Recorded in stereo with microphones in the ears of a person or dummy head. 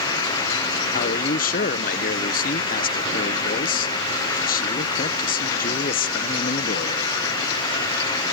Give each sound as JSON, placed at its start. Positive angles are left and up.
{"t": 0.9, "sound": "a man speaking", "side_deg": 45}